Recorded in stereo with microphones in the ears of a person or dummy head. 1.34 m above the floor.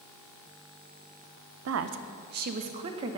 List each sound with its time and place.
1.6 s a woman speaking: 80° right, 0.6 m; by 3.2 s 25° right (ahead or behind), 1.0 m